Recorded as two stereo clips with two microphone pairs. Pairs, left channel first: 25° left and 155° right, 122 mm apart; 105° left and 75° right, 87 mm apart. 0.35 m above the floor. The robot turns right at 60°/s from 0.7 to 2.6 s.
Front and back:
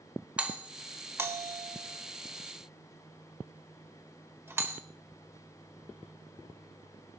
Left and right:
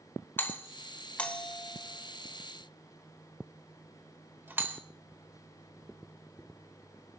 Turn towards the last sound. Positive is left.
turn(degrees=-110)